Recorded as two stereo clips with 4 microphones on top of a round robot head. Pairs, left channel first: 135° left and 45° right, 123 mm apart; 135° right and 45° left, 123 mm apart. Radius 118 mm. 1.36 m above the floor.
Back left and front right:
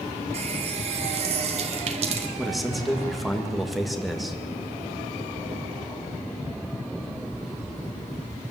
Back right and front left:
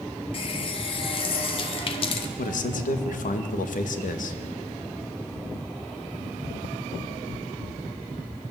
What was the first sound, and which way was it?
A running tap, 90° right.